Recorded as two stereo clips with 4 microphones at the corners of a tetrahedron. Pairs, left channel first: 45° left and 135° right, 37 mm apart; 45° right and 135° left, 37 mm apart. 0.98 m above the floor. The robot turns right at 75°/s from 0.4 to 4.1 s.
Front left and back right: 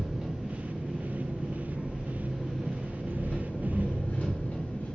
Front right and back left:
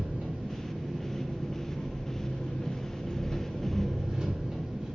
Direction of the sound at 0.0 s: 155° left.